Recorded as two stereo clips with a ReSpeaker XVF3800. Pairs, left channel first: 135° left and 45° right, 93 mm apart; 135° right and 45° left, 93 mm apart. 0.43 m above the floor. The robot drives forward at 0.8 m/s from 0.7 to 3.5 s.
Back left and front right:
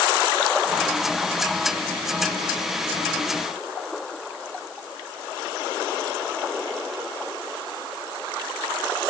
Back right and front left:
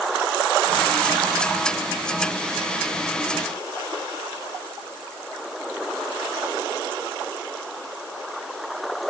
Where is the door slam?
No door slam in this recording.